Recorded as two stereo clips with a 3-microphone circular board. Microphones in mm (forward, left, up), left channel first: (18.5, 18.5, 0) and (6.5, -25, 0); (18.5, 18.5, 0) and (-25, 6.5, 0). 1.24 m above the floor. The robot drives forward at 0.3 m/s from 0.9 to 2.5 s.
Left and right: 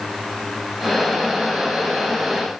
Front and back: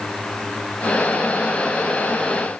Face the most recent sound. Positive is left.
No sound to turn to.